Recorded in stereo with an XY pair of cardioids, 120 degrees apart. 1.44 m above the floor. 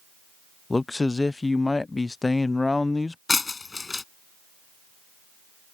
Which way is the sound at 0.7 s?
15° left.